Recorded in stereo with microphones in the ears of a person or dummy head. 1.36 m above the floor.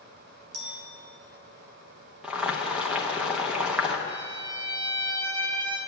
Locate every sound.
0.5 s a clink: 65° right (ahead or behind), 3.5 m
2.2 s boiling: 10° right (ahead or behind), 0.9 m
4.1 s a violin: 25° right (ahead or behind), 0.9 m